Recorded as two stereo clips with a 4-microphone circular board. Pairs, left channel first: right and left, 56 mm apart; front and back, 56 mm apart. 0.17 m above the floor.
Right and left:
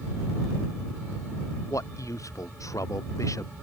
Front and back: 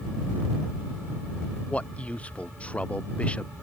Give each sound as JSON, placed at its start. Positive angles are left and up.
{"t": 1.7, "sound": "a man speaking", "azimuth_deg": -70}